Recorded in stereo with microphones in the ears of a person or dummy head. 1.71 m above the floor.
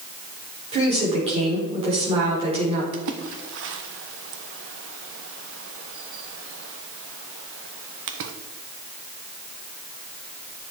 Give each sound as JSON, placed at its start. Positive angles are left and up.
{"t": 0.7, "sound": "a woman speaking", "side_deg": -30, "distance_m": 4.5}
{"t": 2.9, "sound": "a splash", "side_deg": -70, "distance_m": 1.1}